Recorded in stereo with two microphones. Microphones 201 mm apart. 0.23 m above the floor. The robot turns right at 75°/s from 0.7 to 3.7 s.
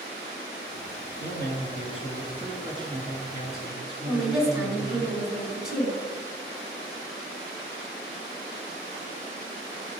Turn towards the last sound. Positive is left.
turn(degrees=-5)  # may be behind; listen again after turning